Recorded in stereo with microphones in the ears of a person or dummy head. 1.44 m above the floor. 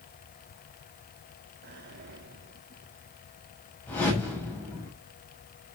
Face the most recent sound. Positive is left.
turn(degrees=10)  # may be behind; listen again after turning